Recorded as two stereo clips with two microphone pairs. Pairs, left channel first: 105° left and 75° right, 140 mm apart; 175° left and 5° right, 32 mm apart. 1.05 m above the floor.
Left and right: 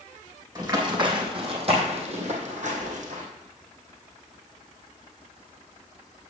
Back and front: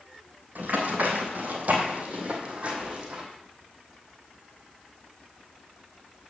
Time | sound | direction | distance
0.6 | running footsteps | 15° right | 2.5 m